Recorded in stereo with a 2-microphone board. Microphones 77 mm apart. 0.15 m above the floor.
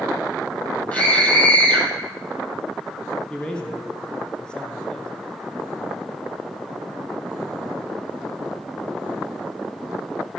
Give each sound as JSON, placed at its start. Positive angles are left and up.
{"t": 0.9, "sound": "a scream", "side_deg": 20, "distance_m": 5.5}
{"t": 3.3, "sound": "a man speaking", "side_deg": 10, "distance_m": 2.0}